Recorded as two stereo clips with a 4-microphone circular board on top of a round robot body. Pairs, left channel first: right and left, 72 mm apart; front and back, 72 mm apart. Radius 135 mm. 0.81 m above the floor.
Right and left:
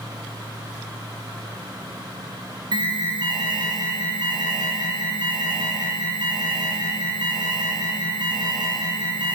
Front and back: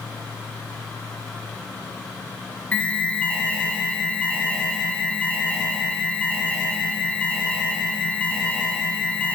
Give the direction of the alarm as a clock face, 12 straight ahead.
10 o'clock.